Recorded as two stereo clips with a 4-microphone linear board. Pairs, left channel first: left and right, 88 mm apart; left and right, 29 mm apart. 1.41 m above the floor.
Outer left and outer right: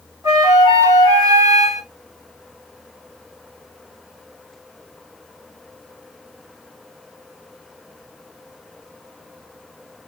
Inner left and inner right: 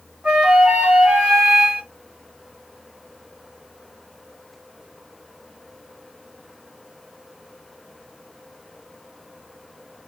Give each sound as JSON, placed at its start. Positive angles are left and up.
{"t": 0.2, "sound": "a flute", "side_deg": -35, "distance_m": 2.5}